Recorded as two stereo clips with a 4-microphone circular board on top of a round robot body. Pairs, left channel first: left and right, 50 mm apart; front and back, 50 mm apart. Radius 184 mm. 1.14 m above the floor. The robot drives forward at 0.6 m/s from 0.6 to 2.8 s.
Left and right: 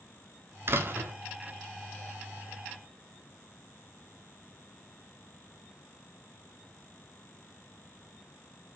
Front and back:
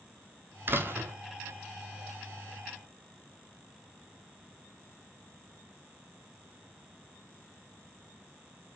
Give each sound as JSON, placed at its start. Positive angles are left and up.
{"t": 0.7, "sound": "a door slam", "azimuth_deg": -130, "distance_m": 2.0}